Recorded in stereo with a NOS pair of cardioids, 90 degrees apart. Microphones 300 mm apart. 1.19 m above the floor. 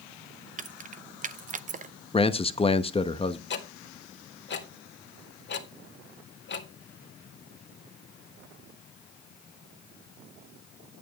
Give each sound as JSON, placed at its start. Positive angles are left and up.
{"t": 0.6, "sound": "keys jangling", "azimuth_deg": -25, "distance_m": 0.7}
{"t": 2.1, "sound": "a man speaking", "azimuth_deg": 20, "distance_m": 1.1}
{"t": 3.5, "sound": "ticking", "azimuth_deg": 35, "distance_m": 1.9}